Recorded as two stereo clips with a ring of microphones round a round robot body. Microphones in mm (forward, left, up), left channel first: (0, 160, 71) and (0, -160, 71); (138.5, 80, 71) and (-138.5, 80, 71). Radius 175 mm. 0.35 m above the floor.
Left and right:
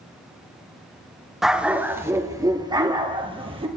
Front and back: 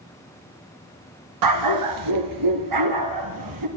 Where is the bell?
I don't hear a bell.